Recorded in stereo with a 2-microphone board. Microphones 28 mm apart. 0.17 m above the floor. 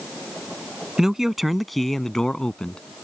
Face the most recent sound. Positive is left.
turn(degrees=35)  # may be behind; listen again after turning